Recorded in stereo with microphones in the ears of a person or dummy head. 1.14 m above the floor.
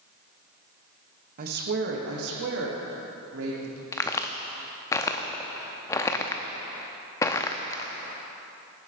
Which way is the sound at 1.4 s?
45° right (ahead or behind).